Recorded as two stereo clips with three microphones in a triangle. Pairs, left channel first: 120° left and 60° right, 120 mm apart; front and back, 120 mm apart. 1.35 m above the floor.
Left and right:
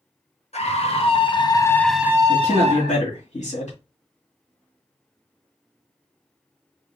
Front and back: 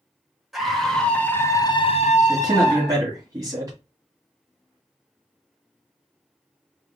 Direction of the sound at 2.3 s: 115° left.